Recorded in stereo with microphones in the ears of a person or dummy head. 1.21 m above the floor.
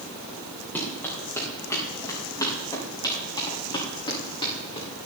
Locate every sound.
0.8 s running footsteps: 10° left (ahead or behind), 7 m; by 4.9 s 30° left (ahead or behind), 8.5 m